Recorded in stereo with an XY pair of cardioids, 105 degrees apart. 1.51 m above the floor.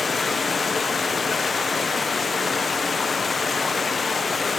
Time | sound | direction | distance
0.0 | running water | 35° left | 0.7 m